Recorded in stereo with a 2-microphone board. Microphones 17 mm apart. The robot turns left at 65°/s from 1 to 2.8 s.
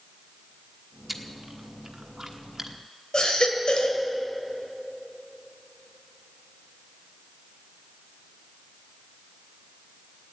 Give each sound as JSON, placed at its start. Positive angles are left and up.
{"t": 1.1, "sound": "chewing", "side_deg": -15, "distance_m": 1.2}
{"t": 3.1, "sound": "a baby crying", "side_deg": 70, "distance_m": 2.0}